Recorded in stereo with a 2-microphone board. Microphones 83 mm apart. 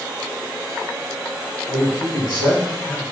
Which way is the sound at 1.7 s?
85° left.